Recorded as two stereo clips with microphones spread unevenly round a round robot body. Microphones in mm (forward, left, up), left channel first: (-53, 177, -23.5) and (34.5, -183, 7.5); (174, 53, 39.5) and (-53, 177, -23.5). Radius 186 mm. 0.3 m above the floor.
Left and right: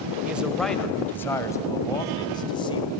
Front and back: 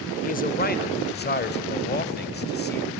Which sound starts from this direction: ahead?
A man speaking, at 0.2 s.